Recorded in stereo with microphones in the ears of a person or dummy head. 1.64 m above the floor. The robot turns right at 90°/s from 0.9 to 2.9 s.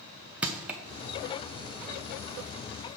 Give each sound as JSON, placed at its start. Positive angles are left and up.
{"t": 0.4, "sound": "crushing", "side_deg": -10, "distance_m": 0.6}